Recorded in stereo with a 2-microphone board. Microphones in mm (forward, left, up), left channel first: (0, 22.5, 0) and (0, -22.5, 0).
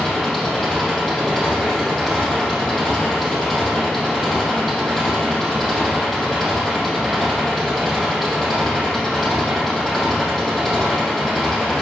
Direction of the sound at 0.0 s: 5° left (ahead or behind).